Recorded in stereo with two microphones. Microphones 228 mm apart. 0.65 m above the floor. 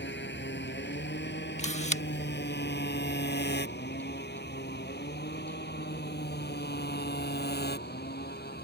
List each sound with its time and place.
0.0 s a motorcycle: 50° left (ahead or behind); by 8.7 s 45° left (ahead or behind)
1.6 s a camera shutter: 30° left (ahead or behind)